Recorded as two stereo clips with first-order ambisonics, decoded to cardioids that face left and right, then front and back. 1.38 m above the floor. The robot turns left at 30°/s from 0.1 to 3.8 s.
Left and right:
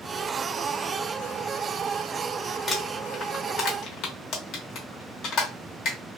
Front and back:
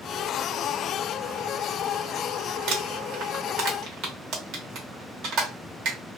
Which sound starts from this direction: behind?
Crumpling, at 2.7 s.